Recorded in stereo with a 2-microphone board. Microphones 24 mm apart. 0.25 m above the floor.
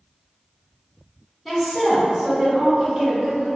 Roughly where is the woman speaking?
Centre.